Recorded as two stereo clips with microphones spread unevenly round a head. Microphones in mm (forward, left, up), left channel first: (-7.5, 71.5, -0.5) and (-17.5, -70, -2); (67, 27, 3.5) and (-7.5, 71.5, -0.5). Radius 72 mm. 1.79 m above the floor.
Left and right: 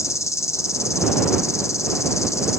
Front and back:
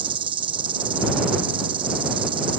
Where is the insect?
150° left.